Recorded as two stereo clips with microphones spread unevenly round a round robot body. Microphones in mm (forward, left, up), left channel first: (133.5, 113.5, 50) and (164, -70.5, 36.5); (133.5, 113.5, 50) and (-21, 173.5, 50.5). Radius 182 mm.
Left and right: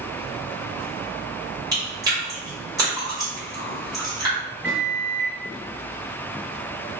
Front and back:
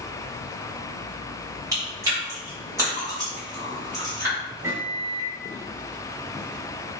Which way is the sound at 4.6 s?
150° right.